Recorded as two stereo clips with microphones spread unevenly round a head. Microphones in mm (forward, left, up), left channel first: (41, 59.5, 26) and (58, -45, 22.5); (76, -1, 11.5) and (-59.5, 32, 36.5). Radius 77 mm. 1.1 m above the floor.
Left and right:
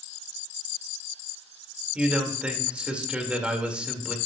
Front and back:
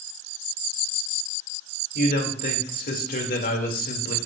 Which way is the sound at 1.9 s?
Straight ahead.